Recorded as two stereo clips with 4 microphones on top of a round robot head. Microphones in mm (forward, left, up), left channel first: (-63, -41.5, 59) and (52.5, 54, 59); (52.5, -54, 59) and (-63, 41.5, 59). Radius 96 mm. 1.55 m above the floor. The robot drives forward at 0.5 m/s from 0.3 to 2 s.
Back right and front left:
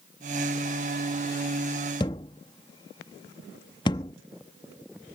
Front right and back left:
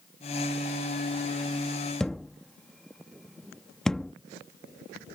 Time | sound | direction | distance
2.0 | a thud | 120° right | ?